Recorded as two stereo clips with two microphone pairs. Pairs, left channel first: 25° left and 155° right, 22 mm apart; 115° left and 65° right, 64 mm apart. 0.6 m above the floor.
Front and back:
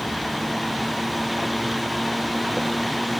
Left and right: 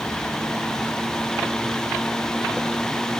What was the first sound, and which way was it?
Only background noise.